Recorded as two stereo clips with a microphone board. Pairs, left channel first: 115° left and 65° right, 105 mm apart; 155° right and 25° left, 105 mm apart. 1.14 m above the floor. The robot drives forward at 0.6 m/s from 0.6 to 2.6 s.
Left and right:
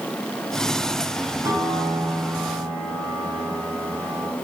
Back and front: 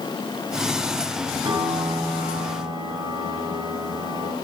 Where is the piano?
5° right, 6.5 m; by 4.3 s 10° right, 6 m.